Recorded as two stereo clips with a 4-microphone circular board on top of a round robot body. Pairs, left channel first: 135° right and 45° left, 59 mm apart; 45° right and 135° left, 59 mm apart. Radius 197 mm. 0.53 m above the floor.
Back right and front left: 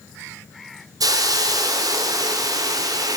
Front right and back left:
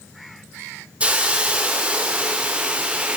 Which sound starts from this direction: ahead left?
A hiss, at 1.0 s.